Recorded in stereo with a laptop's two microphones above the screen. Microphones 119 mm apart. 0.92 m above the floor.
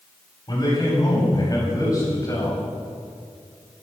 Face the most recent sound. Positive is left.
turn(degrees=25)  # may be behind; listen again after turning